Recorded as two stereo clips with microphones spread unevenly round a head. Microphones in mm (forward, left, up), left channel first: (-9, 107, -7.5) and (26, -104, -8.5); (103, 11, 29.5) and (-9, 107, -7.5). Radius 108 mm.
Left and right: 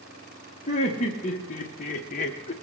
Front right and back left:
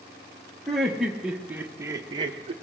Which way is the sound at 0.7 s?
40° left.